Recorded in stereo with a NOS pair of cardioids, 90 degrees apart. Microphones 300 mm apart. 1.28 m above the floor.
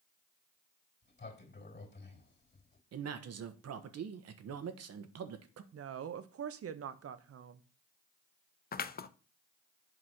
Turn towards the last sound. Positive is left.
turn(degrees=30)